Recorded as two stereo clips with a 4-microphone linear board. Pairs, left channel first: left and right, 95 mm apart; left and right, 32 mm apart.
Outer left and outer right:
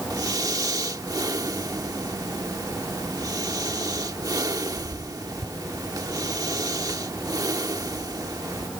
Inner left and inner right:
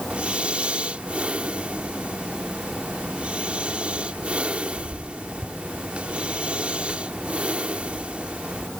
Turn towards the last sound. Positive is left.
turn(degrees=-40)  # may be behind; listen again after turning